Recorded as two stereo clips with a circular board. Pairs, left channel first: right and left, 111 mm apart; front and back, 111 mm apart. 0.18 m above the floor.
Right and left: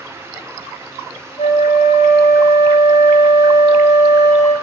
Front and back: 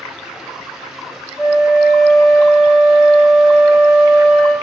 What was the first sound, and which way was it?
A flute, 85° right.